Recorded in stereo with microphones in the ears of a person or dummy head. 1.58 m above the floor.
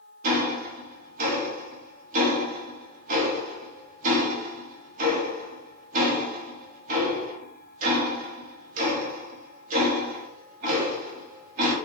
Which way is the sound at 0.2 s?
40° right (ahead or behind).